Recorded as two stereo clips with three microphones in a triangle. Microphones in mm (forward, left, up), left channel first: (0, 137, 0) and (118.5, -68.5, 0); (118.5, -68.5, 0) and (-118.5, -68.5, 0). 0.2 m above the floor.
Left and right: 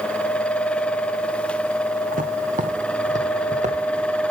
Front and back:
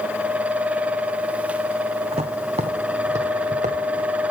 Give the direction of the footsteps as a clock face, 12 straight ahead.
4 o'clock.